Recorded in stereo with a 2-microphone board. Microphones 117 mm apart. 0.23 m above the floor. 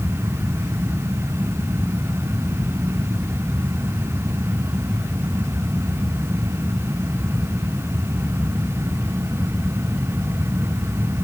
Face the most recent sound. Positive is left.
No sound to turn to.